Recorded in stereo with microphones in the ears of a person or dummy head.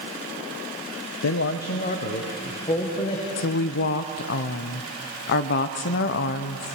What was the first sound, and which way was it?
A man speaking, 60° left (ahead or behind).